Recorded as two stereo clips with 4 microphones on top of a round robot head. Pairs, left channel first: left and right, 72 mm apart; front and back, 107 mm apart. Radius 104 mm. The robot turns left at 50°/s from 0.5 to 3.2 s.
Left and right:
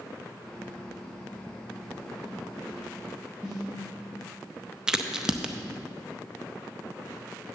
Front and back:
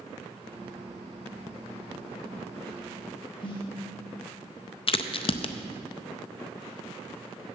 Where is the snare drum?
40° left, 1.9 m.